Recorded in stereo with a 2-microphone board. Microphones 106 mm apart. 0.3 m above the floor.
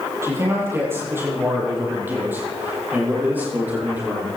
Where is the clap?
No clap in this recording.